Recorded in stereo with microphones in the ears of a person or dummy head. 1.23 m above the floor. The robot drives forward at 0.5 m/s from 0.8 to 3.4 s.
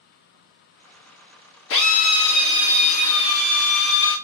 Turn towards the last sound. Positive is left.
turn(degrees=70)  # may be behind; listen again after turning